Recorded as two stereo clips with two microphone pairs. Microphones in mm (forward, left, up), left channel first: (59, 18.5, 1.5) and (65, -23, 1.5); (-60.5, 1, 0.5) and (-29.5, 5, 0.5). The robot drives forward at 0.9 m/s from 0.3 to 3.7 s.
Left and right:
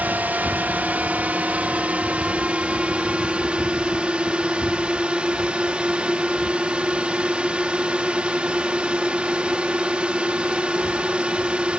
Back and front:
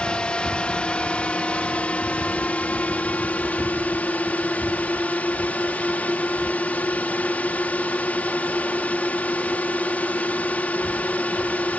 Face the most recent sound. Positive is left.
turn(degrees=-140)